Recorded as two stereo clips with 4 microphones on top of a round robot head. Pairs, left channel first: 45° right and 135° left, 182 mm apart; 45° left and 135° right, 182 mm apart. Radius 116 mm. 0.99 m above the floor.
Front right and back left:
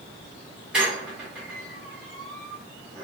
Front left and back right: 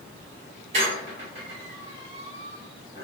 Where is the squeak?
145° right, 0.6 m.